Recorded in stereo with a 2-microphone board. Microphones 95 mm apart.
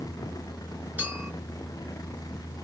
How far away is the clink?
About 1.6 m.